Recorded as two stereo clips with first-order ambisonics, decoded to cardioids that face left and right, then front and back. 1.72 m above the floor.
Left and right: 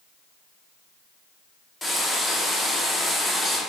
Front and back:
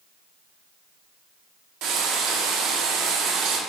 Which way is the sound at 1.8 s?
170° left.